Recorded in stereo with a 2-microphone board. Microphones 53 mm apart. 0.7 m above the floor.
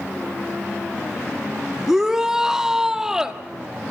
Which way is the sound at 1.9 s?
10° right (ahead or behind).